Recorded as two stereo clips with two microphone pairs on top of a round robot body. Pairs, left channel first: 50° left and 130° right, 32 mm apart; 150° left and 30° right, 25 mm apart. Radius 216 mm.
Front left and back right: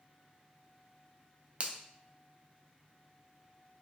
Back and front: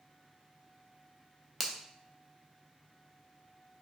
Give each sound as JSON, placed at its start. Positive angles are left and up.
{"t": 1.6, "sound": "a finger snap", "azimuth_deg": -120, "distance_m": 0.7}